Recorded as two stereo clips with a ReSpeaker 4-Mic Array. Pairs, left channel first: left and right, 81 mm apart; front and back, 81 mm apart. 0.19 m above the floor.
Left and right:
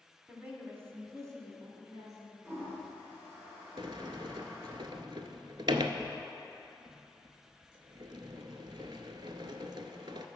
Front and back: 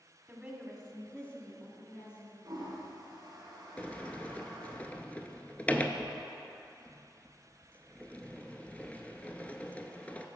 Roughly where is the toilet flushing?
Behind right.